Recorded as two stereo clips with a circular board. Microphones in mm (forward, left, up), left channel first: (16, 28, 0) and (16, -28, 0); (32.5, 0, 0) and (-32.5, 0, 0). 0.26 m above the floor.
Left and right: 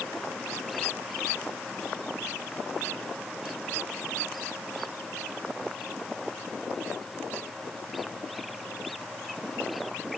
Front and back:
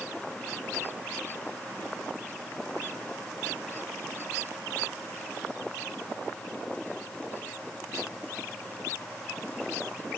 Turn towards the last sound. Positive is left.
No sound to turn to.